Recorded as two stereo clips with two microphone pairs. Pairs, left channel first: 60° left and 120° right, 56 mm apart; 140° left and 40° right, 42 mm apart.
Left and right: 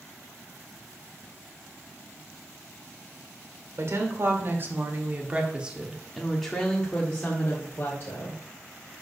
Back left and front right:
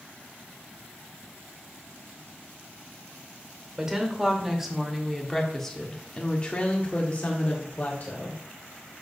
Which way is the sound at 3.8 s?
115° right.